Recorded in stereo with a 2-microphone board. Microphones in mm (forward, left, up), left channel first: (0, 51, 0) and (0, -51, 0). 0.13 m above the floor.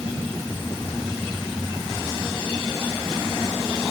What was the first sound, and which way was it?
Only background noise.